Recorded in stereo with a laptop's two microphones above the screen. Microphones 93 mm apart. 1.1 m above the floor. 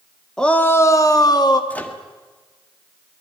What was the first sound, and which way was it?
A shout, 5° left (ahead or behind).